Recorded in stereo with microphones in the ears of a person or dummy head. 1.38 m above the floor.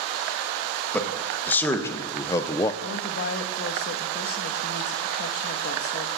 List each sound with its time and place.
0.9 s a man speaking: 5° left (ahead or behind), 2 m; by 2.7 s 15° left (ahead or behind), 0.8 m
2.8 s a woman speaking: 65° left (ahead or behind), 1.5 m